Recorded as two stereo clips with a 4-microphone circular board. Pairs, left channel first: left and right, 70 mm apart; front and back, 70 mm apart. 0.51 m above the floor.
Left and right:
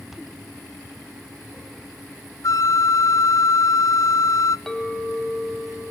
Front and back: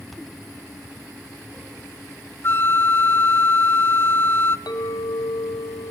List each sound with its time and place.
2.4 s a flute: 55° left, 0.5 m
4.7 s a clink: 5° left, 2 m